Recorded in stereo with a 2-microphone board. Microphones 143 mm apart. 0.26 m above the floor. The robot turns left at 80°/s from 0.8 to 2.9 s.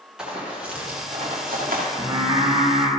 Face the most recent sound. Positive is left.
turn(degrees=-105)